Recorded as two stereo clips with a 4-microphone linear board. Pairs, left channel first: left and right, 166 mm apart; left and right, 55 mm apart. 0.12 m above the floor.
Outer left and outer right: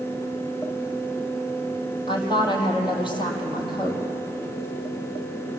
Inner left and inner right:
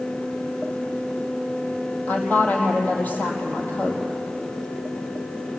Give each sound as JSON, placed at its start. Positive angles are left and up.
{"t": 2.1, "sound": "a woman speaking", "side_deg": 30, "distance_m": 4.5}